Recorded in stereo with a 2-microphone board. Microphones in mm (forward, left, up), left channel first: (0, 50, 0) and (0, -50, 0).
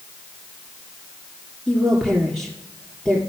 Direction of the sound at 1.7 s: 10° right (ahead or behind).